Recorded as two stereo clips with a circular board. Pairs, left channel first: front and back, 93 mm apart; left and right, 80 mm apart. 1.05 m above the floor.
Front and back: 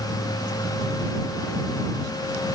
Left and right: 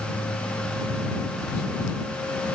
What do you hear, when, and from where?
Only background noise.